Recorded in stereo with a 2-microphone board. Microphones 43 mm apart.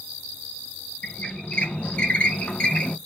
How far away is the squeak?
About 0.8 m.